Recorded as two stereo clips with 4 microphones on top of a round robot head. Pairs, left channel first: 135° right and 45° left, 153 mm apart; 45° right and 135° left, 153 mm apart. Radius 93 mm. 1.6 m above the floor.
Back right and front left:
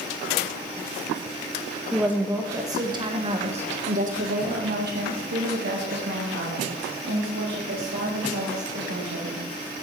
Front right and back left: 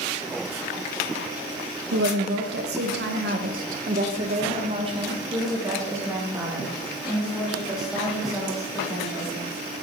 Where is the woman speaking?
130° left, 1.7 m; by 9.5 s 40° left, 4 m.